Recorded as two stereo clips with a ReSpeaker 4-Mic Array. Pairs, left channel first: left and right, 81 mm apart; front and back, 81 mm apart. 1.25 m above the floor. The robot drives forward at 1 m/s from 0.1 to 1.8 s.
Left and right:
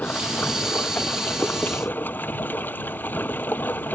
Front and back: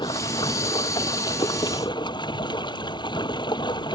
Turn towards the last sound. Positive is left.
turn(degrees=25)